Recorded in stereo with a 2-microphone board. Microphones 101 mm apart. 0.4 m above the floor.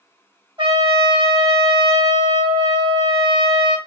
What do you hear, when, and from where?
0.6 s a trumpet: 50° right (ahead or behind), 2.0 m